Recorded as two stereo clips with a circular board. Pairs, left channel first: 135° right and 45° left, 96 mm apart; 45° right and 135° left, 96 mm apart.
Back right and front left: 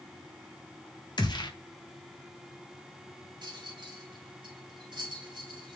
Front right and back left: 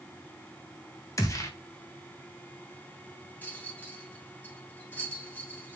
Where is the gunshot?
100° right, 1.7 m.